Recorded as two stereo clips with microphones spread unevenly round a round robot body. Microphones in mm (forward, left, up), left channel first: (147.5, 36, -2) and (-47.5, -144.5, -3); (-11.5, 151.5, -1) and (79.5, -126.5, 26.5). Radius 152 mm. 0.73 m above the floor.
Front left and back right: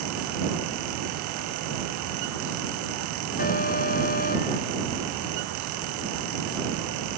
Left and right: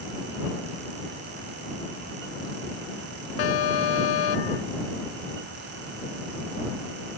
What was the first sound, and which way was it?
An alarm, 110° left.